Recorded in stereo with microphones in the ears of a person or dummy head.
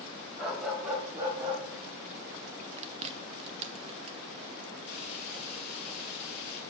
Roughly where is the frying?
Left.